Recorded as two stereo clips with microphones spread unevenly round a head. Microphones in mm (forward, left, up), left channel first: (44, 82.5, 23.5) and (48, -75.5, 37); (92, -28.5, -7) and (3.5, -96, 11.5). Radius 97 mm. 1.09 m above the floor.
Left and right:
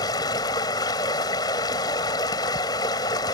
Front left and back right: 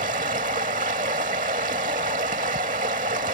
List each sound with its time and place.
0.0 s running water: 165° left